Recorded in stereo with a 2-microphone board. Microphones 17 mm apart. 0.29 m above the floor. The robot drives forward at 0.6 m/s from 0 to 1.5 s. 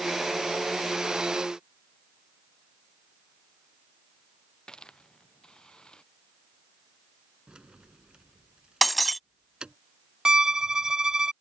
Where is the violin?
45° right (ahead or behind).